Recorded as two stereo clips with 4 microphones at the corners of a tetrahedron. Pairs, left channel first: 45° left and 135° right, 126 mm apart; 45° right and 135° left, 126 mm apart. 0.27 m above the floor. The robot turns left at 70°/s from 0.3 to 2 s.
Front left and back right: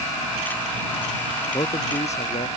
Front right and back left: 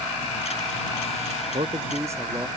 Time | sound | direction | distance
1.5 | a man speaking | 100° left | ?